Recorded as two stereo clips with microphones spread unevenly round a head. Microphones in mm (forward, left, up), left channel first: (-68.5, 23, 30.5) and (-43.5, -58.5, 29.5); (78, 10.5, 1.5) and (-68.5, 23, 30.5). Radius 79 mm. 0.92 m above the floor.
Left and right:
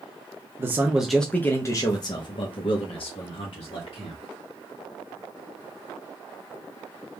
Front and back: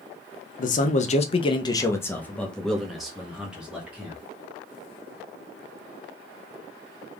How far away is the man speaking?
About 0.6 m.